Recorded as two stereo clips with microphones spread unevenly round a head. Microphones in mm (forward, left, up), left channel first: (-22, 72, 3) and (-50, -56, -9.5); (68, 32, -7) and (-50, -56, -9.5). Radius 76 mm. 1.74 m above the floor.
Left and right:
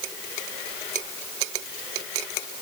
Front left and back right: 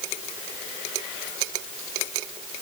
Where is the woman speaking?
I don't hear a woman speaking.